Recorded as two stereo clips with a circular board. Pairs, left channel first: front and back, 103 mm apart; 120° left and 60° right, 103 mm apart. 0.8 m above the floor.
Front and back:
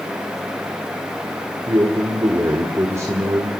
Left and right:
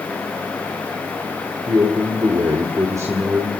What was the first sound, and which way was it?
A man speaking, 120° right.